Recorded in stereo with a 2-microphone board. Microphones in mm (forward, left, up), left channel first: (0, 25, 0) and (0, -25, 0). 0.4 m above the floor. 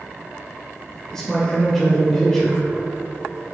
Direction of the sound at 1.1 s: 10° left (ahead or behind).